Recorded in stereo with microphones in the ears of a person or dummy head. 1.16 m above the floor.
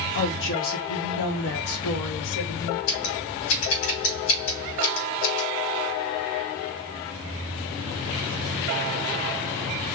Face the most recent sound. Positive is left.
turn(degrees=75)  # may be behind; listen again after turning